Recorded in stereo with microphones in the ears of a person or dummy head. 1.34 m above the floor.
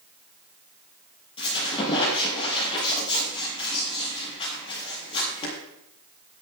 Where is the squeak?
25° left (ahead or behind), 6.5 m.